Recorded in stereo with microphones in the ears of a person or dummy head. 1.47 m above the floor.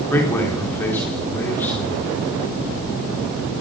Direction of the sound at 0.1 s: 15° left (ahead or behind).